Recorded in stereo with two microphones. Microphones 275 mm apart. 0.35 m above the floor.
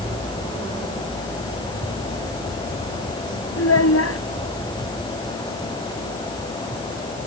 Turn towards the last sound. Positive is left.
turn(degrees=65)  # may be behind; listen again after turning